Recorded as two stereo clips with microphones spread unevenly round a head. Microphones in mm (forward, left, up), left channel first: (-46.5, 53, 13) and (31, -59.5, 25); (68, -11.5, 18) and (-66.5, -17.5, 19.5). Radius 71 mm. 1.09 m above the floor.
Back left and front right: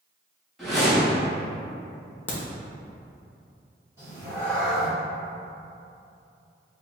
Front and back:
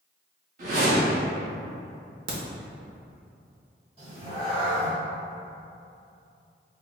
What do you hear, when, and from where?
0.6 s a whoosh: 145° right, 1.3 m
2.3 s a crack: 160° right, 0.9 m
4.0 s a cat meowing: 125° right, 1.6 m